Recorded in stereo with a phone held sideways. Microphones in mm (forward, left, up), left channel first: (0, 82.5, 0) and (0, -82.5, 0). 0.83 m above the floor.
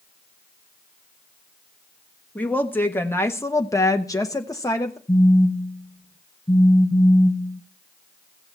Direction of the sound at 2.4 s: 10° left (ahead or behind).